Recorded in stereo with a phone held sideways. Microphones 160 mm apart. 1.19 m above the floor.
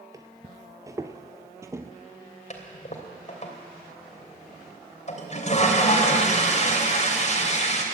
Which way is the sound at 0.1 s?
20° right (ahead or behind).